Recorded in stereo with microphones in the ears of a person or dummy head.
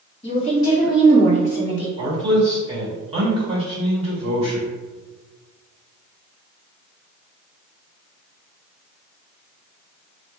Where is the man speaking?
30° right (ahead or behind), 1.8 m.